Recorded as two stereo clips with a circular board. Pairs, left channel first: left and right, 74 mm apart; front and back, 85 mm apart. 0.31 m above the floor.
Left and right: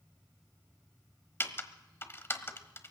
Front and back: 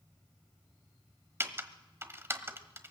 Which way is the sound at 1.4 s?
130° left.